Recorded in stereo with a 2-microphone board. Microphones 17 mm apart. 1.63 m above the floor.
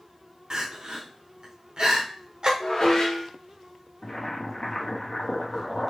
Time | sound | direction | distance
0.5 | crying | 55° right (ahead or behind) | 0.8 m
2.6 | dishes clattering | 60° left (ahead or behind) | 1.2 m
4.0 | boiling | 65° left (ahead or behind) | 1.0 m